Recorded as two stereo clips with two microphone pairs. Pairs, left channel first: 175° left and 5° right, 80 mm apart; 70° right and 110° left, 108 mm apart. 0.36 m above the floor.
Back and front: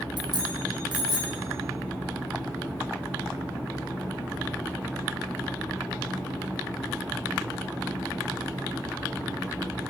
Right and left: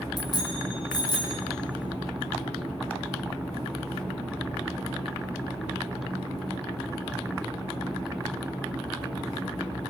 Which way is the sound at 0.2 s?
25° right.